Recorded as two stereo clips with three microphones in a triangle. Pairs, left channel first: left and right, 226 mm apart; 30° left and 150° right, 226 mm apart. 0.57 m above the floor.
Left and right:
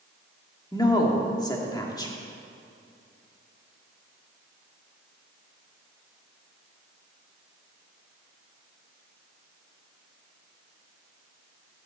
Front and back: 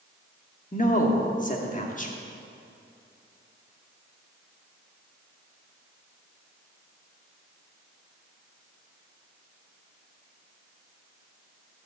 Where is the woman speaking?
30° left, 1.4 m.